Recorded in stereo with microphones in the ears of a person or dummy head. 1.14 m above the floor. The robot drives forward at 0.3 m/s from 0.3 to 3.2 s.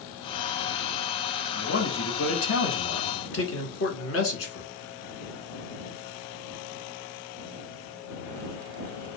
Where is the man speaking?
70° left (ahead or behind), 1.3 m; by 4.7 s 75° left (ahead or behind), 1.2 m.